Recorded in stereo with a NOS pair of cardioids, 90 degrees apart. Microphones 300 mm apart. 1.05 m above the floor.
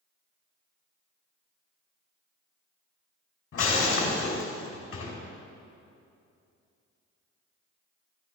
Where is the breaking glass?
50° left, 3 m.